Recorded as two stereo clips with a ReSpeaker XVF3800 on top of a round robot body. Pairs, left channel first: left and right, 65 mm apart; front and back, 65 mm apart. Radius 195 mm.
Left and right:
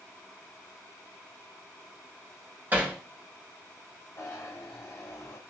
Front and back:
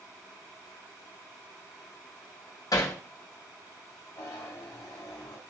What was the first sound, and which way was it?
Hammering, 30° right.